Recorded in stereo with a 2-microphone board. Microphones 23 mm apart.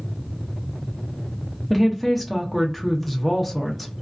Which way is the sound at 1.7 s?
Centre (ahead or behind).